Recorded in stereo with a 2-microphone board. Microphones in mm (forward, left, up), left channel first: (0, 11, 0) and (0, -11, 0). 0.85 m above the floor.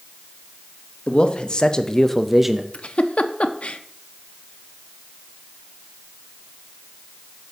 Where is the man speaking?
50° left (ahead or behind), 1.1 m; by 2.6 s 20° right (ahead or behind), 0.5 m.